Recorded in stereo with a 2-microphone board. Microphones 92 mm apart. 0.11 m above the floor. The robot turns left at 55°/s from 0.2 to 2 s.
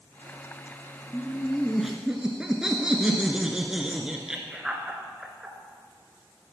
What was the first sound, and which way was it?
Laughter, 35° left.